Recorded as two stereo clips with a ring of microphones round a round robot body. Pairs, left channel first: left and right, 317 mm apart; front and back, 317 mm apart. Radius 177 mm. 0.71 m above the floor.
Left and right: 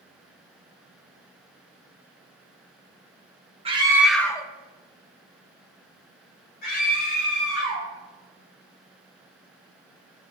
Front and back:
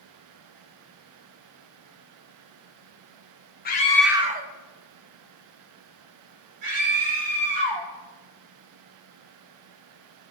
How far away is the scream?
About 0.9 m.